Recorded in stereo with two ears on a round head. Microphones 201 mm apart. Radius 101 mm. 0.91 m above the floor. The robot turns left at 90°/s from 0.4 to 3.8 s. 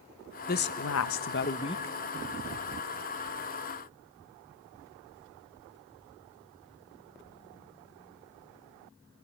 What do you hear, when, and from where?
0.5 s a woman speaking: 135° left, 0.5 m; by 1.9 s 5° left, 0.5 m